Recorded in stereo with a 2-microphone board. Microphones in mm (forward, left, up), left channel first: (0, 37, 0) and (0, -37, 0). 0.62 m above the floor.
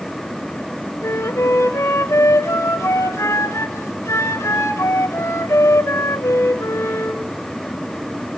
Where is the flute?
50° left (ahead or behind), 1.4 m.